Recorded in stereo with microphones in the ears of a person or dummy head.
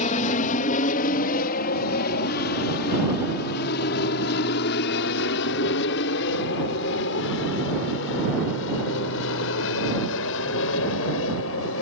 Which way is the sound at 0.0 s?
40° left (ahead or behind).